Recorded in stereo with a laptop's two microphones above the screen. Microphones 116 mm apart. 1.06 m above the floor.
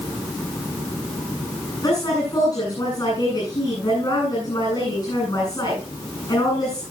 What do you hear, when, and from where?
1.8 s a woman speaking: 40° left (ahead or behind), 9 m